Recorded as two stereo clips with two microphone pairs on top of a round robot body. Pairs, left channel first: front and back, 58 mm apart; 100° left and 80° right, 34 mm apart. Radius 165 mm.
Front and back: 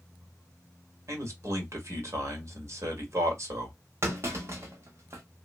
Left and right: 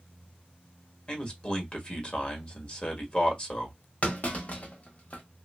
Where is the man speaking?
150° left, 1.7 m.